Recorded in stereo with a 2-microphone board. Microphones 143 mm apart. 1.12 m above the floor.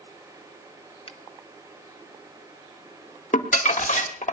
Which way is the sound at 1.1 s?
45° left (ahead or behind).